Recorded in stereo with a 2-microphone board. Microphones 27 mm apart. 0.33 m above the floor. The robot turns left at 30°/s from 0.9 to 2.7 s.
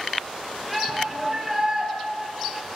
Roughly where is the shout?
Centre.